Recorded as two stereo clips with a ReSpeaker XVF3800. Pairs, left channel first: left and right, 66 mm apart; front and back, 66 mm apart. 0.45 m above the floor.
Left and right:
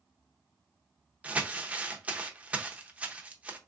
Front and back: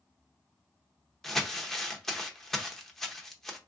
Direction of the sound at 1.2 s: 75° right.